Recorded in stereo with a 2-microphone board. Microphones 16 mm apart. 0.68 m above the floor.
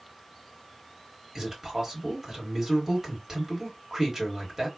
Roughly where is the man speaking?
Right.